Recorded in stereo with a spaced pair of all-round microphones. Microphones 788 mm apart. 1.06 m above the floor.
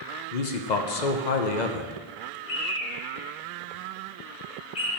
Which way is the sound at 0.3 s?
65° left (ahead or behind).